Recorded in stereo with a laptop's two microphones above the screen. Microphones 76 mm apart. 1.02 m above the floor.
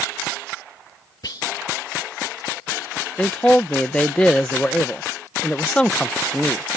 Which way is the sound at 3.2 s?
15° left (ahead or behind).